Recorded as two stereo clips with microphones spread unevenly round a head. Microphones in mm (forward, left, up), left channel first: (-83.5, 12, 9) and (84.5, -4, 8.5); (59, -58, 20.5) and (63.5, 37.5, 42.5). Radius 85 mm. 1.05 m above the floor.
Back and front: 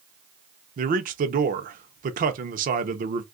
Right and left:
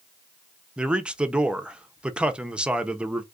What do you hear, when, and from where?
0.8 s a man speaking: straight ahead, 0.6 m